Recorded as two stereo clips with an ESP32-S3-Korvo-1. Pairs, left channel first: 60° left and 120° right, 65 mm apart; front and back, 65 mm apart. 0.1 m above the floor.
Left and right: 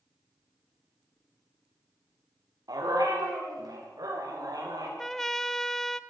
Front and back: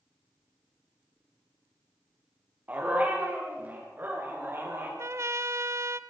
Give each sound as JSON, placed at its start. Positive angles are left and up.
{"t": 2.7, "sound": "a dog barking", "azimuth_deg": -120, "distance_m": 6.5}
{"t": 5.0, "sound": "a trumpet", "azimuth_deg": 145, "distance_m": 0.6}